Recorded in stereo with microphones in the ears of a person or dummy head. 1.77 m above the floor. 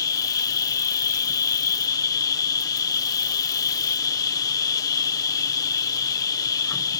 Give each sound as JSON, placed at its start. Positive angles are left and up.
{"t": 0.0, "sound": "an insect", "side_deg": 20}